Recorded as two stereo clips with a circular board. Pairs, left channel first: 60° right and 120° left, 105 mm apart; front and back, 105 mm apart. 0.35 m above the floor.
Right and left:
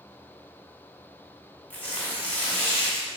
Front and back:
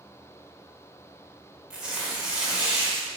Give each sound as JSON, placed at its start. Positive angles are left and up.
{"t": 1.7, "sound": "tearing paper", "azimuth_deg": -110, "distance_m": 0.9}